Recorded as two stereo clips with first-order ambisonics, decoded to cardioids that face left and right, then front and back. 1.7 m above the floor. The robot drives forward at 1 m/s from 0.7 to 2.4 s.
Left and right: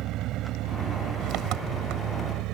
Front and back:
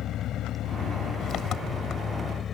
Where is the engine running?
50° right; by 2.5 s 60° right.